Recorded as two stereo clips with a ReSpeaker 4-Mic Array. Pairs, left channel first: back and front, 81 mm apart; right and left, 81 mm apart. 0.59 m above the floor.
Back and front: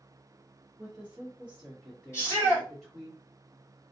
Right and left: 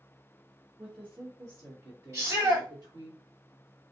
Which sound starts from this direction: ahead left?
A woman speaking, at 0.8 s.